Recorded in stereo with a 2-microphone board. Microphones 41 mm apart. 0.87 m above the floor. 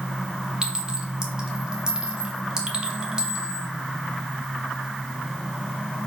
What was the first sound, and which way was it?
A clink, 20° right (ahead or behind).